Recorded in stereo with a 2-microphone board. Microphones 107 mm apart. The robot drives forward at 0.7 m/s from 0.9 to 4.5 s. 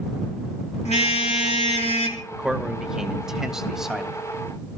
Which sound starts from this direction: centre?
A man speaking, at 2.3 s.